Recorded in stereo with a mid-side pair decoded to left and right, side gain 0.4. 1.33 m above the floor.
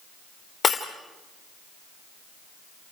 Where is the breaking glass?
40° left, 3 m.